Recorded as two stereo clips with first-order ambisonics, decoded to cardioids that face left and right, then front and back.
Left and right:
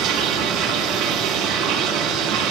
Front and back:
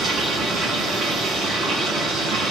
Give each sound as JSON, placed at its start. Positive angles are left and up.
{"t": 0.0, "sound": "running water", "azimuth_deg": -120, "distance_m": 5.0}